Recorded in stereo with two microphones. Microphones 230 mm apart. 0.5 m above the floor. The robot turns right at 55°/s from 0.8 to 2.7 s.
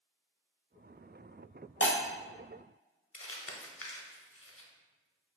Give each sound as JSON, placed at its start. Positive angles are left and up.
{"t": 1.8, "sound": "breaking glass", "side_deg": 60, "distance_m": 0.7}
{"t": 3.1, "sound": "crumpling", "side_deg": 70, "distance_m": 0.5}